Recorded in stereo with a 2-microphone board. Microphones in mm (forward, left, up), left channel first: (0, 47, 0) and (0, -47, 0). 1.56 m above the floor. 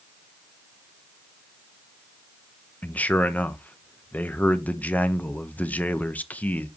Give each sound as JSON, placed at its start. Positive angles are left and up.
{"t": 2.8, "sound": "a man speaking", "side_deg": 15, "distance_m": 0.7}